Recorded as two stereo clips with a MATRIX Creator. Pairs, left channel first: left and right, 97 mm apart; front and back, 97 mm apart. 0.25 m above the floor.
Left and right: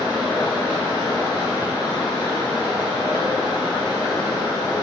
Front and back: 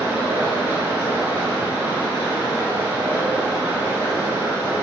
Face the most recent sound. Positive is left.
turn(degrees=120)